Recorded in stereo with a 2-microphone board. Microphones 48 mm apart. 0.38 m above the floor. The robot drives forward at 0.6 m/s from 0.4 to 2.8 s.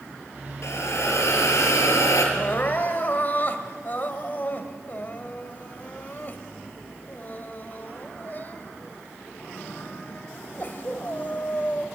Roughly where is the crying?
Left.